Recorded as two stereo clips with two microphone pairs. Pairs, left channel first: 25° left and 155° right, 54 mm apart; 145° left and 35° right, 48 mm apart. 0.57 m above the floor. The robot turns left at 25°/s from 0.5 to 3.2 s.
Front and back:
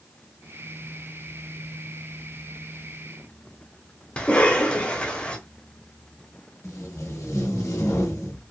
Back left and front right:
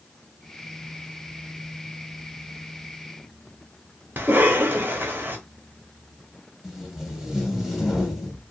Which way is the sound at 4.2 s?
35° right.